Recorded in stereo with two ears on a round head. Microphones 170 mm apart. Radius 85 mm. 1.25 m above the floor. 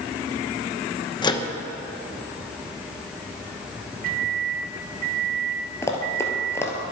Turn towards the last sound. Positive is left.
turn(degrees=15)  # may be behind; listen again after turning